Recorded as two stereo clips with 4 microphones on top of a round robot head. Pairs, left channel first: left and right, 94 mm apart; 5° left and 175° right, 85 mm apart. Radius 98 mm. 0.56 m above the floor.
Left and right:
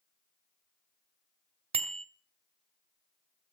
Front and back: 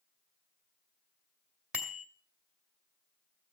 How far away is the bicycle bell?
About 2 m.